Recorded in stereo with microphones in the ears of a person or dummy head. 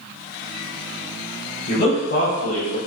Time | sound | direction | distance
1.7 | a man speaking | 55° left (ahead or behind) | 1.3 m